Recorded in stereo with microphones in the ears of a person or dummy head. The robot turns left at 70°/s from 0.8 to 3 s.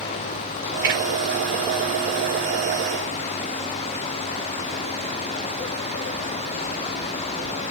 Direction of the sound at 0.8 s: 20° right (ahead or behind).